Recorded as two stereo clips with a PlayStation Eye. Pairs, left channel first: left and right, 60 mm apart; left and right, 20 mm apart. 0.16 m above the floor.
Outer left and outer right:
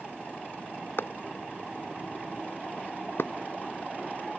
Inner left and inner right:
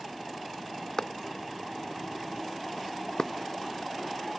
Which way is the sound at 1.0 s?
40° left (ahead or behind).